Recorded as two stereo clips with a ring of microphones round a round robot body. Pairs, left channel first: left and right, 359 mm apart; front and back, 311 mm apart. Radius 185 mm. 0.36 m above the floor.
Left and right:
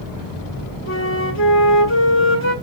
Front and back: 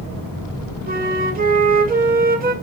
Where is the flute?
130° left, 2.0 m.